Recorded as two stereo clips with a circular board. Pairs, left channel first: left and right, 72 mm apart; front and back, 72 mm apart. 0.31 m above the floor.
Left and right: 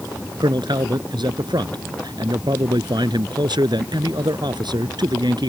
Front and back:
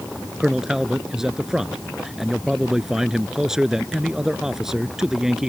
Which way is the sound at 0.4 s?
95° right.